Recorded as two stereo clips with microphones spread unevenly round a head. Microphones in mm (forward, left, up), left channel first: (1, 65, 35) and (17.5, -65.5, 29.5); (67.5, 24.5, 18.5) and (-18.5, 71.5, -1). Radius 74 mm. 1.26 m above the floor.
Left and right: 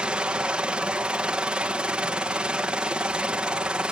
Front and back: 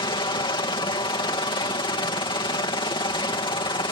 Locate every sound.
0.0 s a helicopter: 5° right